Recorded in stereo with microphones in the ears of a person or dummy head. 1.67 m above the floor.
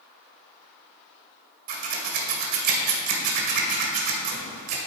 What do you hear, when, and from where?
1.7 s scissors: 55° right (ahead or behind), 1.5 m